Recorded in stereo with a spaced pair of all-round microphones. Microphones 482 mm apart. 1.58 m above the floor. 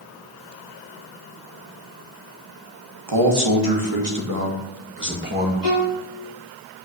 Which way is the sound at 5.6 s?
45° right (ahead or behind).